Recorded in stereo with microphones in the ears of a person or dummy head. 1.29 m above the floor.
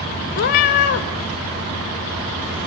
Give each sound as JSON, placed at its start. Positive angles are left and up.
{"t": 0.3, "sound": "a cat meowing", "side_deg": 40, "distance_m": 0.5}